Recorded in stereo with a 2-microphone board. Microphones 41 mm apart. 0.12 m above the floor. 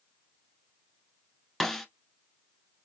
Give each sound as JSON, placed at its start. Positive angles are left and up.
{"t": 1.6, "sound": "a snare drum", "side_deg": 5, "distance_m": 1.0}